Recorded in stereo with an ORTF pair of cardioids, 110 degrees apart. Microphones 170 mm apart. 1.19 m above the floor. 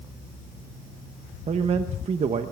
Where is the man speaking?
40° right, 1.1 m.